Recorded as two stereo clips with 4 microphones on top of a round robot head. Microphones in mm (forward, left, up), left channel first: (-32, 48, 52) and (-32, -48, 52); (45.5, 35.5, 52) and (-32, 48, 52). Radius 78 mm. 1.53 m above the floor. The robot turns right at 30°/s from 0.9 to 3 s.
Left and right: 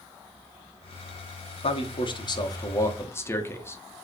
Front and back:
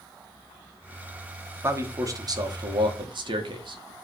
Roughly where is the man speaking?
Behind left.